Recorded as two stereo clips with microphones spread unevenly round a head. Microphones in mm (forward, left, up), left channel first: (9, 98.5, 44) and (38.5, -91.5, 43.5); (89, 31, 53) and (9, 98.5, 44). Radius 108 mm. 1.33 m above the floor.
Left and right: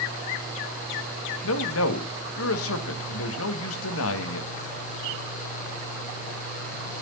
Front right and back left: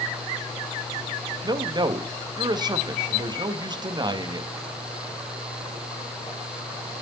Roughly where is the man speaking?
Left.